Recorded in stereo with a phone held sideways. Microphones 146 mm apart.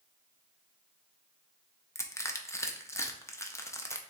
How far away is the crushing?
About 0.5 m.